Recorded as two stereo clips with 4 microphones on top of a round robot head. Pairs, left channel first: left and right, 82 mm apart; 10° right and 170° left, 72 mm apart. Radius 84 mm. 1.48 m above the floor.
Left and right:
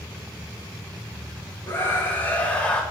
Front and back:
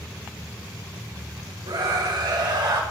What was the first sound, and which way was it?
A scream, 155° left.